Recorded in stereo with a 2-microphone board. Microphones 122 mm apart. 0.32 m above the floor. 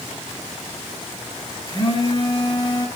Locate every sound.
1.7 s a phone buzzing: 35° left (ahead or behind), 2 m